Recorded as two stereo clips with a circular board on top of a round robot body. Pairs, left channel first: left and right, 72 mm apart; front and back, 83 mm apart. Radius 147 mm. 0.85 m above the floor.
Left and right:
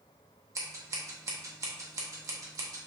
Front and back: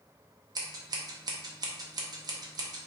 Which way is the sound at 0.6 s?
135° right.